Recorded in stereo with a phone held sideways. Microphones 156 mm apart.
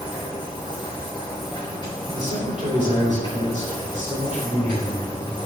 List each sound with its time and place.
0.0 s a machine running: 30° left (ahead or behind), 3.5 m
2.1 s a man speaking: 50° right (ahead or behind), 3.5 m